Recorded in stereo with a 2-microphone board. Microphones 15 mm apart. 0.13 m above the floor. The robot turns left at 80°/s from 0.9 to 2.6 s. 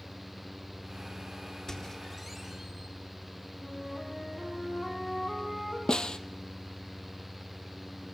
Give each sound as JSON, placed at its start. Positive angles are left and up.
{"t": 1.7, "sound": "a squeak", "azimuth_deg": 55, "distance_m": 4.0}
{"t": 3.6, "sound": "a flute", "side_deg": 40, "distance_m": 5.0}
{"t": 5.9, "sound": "a snare drum", "side_deg": 70, "distance_m": 0.8}